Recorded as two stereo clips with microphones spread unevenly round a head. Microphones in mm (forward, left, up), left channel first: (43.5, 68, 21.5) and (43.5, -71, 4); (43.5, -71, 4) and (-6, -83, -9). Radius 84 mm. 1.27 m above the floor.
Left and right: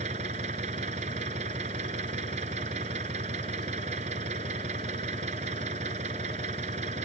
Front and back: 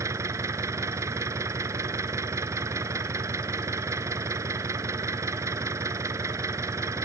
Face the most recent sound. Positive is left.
turn(degrees=-145)